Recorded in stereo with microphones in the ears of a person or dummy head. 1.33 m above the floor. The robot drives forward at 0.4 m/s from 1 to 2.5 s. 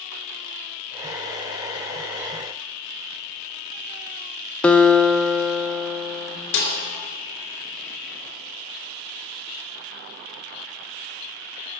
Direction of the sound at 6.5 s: 85° left.